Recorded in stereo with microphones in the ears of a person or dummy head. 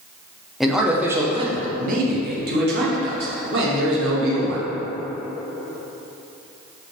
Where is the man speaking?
5° right (ahead or behind), 0.9 m; by 4.7 s 70° right (ahead or behind), 2 m.